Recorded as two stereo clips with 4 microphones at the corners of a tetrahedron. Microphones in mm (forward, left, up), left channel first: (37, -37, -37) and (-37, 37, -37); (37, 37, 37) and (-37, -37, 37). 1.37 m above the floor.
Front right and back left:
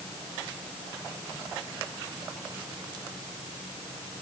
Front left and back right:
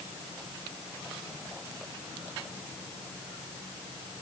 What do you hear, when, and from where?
Only background noise.